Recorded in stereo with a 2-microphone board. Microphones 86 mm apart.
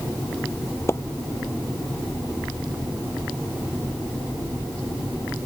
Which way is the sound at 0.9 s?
30° left (ahead or behind).